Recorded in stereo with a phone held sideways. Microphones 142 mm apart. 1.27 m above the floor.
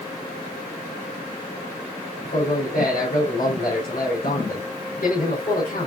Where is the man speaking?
85° left, 4 m.